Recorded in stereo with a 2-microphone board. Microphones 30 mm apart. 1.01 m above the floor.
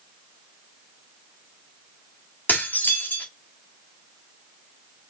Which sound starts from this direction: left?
Dishes clattering, at 2.5 s.